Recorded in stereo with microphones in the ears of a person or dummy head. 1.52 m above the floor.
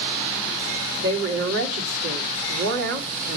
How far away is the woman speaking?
About 2 m.